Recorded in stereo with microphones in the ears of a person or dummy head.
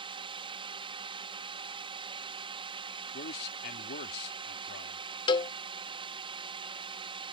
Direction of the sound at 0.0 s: 25° right (ahead or behind).